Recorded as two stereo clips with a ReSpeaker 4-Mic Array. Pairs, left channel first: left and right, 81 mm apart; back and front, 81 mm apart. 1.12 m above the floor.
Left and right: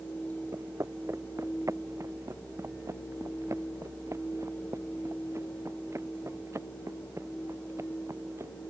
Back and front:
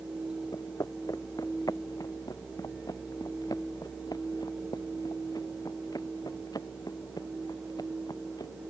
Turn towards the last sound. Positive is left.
turn(degrees=-145)